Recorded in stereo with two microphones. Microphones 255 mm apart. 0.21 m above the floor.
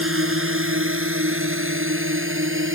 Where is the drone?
55° right (ahead or behind); by 2.8 s 50° right (ahead or behind).